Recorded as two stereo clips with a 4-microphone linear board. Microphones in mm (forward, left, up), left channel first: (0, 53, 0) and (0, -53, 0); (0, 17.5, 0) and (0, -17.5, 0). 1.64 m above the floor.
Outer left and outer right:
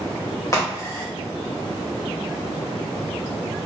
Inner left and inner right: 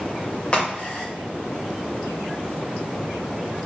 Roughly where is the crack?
Left.